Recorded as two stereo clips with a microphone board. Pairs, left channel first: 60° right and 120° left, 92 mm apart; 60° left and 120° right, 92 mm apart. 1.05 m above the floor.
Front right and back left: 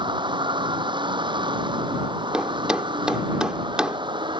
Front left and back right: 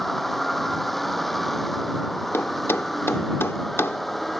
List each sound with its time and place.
0.0 s a vehicle: 150° left
2.3 s a thud: 50° left